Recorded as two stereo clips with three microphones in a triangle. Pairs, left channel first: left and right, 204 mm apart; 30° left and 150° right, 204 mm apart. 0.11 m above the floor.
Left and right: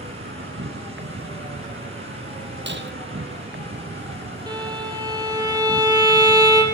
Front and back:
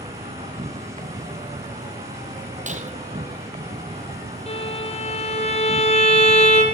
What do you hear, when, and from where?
0.0 s an insect: 90° right, 1.0 m
2.7 s breaking glass: 100° right, 1.6 m
4.5 s a violin: 25° right, 4 m